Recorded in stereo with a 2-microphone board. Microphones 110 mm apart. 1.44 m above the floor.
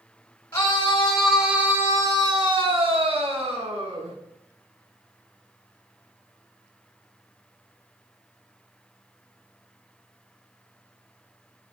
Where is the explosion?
No explosion in this recording.